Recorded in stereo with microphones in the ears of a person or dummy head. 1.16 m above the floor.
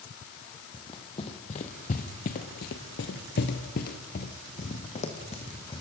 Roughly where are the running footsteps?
Left.